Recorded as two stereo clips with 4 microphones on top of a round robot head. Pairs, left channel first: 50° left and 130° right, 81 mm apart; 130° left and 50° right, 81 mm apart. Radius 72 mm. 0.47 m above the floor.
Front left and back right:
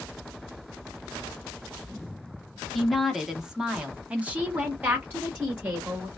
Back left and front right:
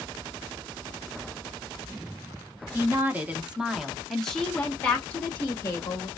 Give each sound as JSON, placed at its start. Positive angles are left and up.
{"t": 2.7, "sound": "a woman speaking", "azimuth_deg": -35, "distance_m": 1.2}